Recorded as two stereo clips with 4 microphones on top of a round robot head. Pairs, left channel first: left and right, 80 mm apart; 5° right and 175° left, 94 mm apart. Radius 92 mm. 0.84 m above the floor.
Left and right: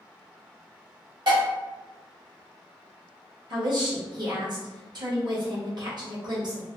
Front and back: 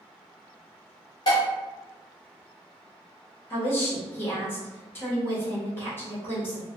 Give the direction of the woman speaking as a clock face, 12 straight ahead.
2 o'clock.